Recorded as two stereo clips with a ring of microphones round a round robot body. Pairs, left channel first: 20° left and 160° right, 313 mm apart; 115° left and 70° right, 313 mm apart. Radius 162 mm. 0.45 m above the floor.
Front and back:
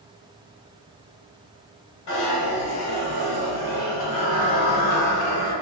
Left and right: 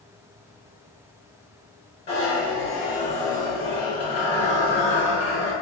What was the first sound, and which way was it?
A zipper, 40° left.